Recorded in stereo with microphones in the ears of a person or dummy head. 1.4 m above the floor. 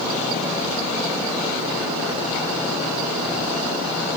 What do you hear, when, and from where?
Only background noise.